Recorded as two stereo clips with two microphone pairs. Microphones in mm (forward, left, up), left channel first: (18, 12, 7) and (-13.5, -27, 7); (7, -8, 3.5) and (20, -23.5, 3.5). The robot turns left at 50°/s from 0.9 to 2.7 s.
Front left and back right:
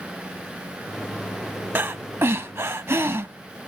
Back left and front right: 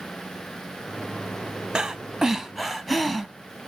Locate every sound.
1.8 s breathing: 90° right, 0.7 m; by 3.3 s 140° right, 0.7 m